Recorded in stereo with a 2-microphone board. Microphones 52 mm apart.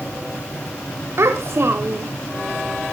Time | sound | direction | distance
1.2 | a child speaking | 60° right (ahead or behind) | 0.9 m